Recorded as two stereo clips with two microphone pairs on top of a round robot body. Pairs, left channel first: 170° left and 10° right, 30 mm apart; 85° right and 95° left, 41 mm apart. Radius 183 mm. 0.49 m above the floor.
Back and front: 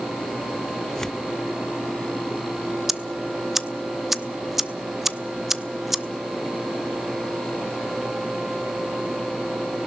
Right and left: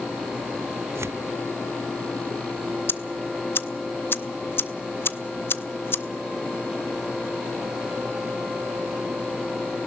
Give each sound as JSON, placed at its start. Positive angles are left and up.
{"t": 0.9, "sound": "tearing paper", "azimuth_deg": 100, "distance_m": 0.5}
{"t": 2.9, "sound": "ticking", "azimuth_deg": -90, "distance_m": 1.0}